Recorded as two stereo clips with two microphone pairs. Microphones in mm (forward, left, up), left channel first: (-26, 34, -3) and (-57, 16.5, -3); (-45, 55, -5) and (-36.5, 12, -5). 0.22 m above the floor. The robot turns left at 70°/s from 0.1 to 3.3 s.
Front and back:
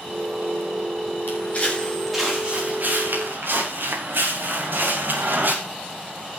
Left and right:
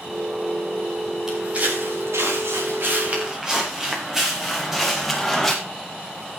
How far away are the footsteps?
About 7.5 m.